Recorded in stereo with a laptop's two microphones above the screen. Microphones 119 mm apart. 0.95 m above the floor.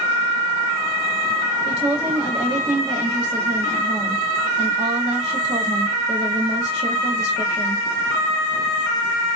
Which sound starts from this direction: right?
A woman speaking, at 1.6 s.